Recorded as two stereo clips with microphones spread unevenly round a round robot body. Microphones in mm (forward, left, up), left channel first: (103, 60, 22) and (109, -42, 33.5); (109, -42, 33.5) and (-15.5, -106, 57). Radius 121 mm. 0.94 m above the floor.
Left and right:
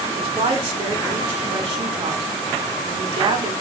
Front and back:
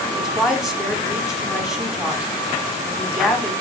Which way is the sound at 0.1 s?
65° right.